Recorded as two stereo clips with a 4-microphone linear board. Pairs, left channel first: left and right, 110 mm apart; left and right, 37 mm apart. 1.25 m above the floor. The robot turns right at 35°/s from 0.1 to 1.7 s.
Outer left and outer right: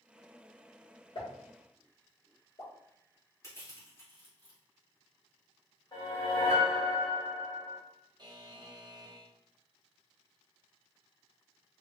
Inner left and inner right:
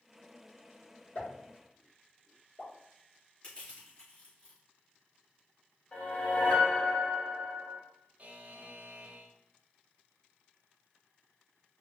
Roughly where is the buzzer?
Right.